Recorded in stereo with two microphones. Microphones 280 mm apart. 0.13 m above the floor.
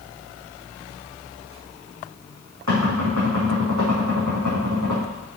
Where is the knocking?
80° right, 5 m.